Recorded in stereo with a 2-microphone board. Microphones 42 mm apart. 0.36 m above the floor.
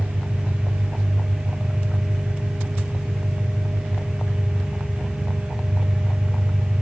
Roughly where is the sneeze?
No sneeze in this recording.